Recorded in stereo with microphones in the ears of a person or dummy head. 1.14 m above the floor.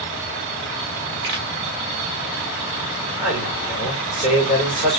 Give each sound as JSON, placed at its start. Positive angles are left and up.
{"t": 1.2, "sound": "a pop", "side_deg": -60, "distance_m": 1.8}
{"t": 3.2, "sound": "a man speaking", "side_deg": -10, "distance_m": 3.0}